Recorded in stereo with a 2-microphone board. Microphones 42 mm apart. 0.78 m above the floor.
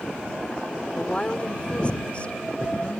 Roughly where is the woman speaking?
Left.